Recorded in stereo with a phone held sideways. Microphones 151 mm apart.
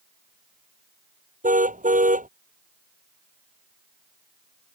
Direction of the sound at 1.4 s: 60° right (ahead or behind).